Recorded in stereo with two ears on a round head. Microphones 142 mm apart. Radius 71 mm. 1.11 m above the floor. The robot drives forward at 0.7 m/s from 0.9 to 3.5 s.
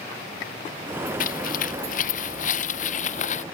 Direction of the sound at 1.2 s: 55° left (ahead or behind).